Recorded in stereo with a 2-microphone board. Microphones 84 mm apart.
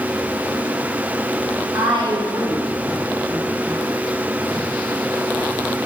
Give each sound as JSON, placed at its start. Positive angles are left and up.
{"t": 1.7, "sound": "a woman speaking", "side_deg": -80, "distance_m": 3.0}